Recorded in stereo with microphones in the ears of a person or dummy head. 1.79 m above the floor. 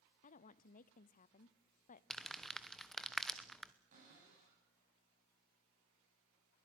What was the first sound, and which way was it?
A woman speaking, 40° left (ahead or behind).